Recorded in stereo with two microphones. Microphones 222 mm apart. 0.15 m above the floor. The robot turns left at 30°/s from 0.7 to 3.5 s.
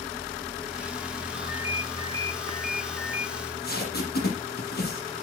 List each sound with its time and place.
1.3 s a ringtone: 5° right, 2 m; by 3.3 s 60° right, 2 m
3.4 s tape being pulled: 50° left (ahead or behind), 6 m; by 5.1 s 45° left (ahead or behind), 6 m